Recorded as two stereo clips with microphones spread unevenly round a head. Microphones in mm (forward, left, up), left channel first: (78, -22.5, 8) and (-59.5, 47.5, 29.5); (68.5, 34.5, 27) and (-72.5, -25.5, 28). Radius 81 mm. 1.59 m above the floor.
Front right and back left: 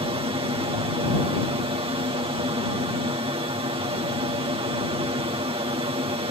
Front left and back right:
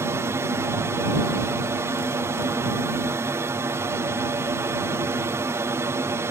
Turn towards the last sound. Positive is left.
turn(degrees=150)